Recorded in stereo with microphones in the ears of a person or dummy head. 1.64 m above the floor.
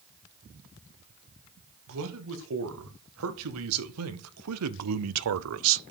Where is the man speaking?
70° right (ahead or behind), 2.5 m; by 5.8 s 60° right (ahead or behind), 0.5 m.